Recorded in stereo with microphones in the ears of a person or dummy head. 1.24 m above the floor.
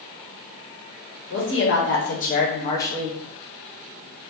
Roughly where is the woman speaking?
Left.